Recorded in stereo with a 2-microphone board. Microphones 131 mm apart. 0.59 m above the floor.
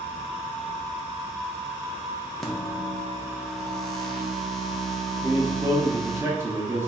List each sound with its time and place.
2.4 s a microwave: 5° left (ahead or behind), 0.7 m
5.2 s a man speaking: 20° right (ahead or behind), 0.7 m